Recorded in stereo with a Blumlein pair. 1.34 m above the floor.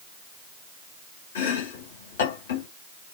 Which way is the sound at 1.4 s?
60° left.